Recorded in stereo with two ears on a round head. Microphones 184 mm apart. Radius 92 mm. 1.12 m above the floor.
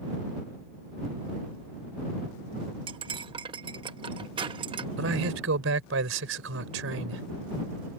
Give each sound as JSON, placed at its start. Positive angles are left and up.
{"t": 2.9, "sound": "cutlery clinking", "side_deg": -25}
{"t": 5.0, "sound": "a man speaking", "side_deg": -80}